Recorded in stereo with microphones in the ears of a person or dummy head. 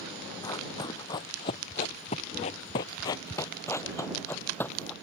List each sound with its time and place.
0.4 s running footsteps: 20° left (ahead or behind); by 4.9 s 10° left (ahead or behind)